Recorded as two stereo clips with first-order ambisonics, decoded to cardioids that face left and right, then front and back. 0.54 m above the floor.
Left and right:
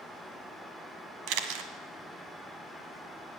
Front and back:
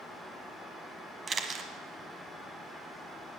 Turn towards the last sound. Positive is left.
turn(degrees=-110)